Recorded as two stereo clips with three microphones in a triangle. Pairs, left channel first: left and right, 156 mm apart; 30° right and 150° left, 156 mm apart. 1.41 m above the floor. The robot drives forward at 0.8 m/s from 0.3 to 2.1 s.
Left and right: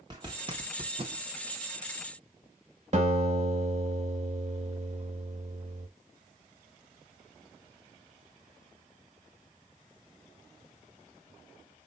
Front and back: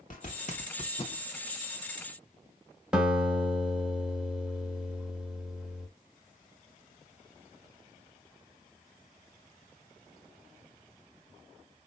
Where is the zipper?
35° right, 1.4 m; by 1.2 s 70° right, 1.0 m.